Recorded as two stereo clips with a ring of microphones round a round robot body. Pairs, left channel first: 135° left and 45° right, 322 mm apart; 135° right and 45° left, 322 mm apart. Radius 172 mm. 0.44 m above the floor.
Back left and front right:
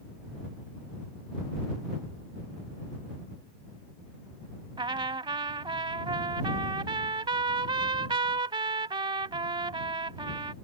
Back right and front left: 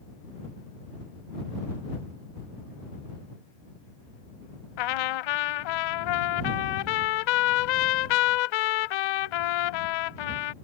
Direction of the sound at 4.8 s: 120° right.